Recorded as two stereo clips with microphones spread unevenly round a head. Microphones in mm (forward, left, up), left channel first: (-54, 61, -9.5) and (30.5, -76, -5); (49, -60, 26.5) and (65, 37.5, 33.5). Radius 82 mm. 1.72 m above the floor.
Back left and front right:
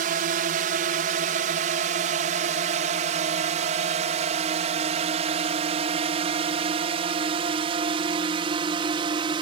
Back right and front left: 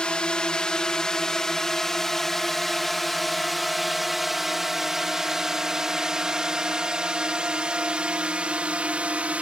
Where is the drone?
20° right; by 9.4 s 5° left.